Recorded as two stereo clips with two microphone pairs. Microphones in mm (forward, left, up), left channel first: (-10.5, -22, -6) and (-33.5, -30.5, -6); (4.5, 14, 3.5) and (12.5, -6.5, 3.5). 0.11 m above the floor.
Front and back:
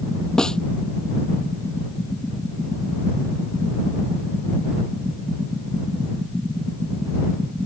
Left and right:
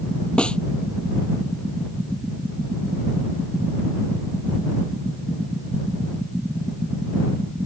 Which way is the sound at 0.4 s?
80° left.